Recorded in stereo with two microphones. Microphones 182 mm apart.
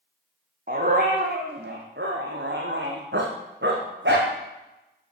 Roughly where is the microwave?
No microwave in this recording.